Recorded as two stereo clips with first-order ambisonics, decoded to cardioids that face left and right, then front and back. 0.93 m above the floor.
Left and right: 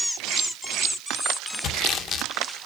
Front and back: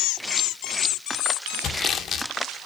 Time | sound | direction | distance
1.6 | sawing | 50° left | 0.7 m